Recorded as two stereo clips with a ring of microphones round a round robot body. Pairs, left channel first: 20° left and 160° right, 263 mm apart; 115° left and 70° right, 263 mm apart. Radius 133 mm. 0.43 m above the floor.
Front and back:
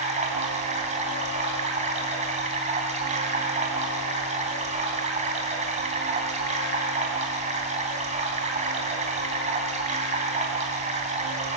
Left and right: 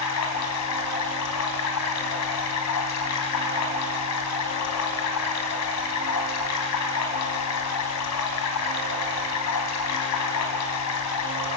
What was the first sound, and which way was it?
Running water, 140° left.